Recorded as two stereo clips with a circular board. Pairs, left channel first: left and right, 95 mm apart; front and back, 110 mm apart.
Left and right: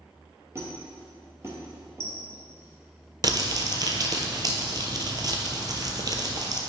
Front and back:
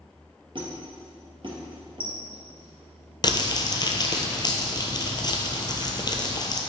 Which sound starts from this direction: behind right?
A squeak, at 0.6 s.